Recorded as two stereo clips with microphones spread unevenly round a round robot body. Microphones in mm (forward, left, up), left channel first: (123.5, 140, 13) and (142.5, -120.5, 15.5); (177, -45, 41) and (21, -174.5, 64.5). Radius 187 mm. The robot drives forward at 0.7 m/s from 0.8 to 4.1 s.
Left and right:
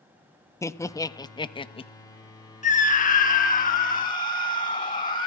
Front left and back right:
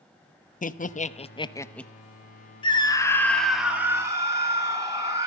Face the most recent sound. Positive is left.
turn(degrees=140)